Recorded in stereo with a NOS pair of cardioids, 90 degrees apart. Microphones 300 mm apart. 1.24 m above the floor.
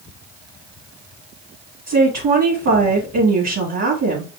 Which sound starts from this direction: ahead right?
A woman speaking, at 1.9 s.